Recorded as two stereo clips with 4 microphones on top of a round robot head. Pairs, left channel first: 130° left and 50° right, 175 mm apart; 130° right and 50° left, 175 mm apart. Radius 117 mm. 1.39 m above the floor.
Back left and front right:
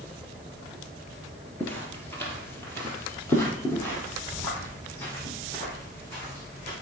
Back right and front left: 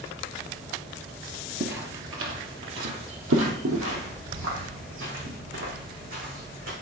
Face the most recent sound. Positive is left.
turn(degrees=55)